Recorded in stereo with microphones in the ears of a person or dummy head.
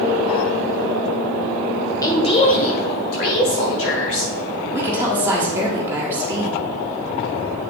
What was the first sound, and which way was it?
A woman speaking, 20° left (ahead or behind).